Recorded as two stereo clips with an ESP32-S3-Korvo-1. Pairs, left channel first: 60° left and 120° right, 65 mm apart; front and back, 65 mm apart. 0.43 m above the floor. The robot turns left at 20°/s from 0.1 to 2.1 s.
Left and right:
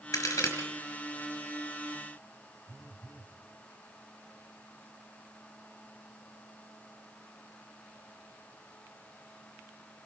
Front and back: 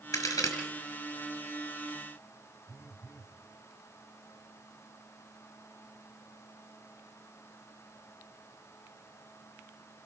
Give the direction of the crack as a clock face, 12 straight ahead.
11 o'clock.